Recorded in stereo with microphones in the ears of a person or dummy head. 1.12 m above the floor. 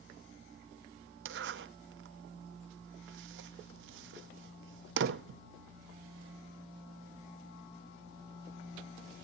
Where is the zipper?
60° right (ahead or behind), 0.6 m.